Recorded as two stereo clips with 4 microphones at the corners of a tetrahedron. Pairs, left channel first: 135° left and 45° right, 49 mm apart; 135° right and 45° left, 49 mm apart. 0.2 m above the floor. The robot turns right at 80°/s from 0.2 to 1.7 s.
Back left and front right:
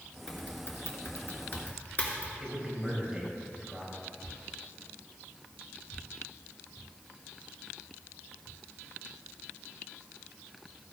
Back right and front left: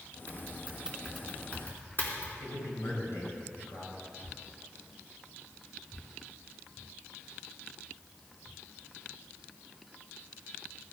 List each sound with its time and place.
0.3 s typing on a keyboard: 70° left, 2.5 m; by 2.3 s 175° right, 2.5 m
2.4 s a man speaking: 125° right, 4.5 m